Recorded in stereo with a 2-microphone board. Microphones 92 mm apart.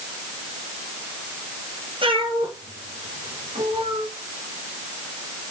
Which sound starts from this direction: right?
A cat meowing, at 2.0 s.